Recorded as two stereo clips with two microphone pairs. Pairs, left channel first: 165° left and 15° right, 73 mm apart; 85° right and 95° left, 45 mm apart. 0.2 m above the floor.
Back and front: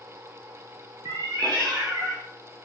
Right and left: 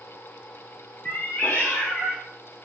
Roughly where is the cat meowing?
Ahead right.